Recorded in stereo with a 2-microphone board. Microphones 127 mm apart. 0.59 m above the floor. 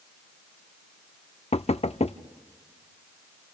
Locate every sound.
1.5 s knocking: 55° left (ahead or behind), 0.6 m